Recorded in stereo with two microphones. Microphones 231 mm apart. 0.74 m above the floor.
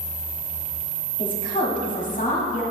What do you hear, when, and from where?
1.2 s a woman speaking: 40° left (ahead or behind), 1.5 m